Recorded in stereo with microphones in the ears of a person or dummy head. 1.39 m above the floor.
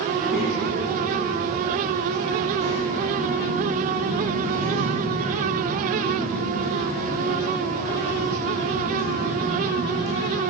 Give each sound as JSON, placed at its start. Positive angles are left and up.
{"t": 0.1, "sound": "a child speaking", "side_deg": 0, "distance_m": 2.0}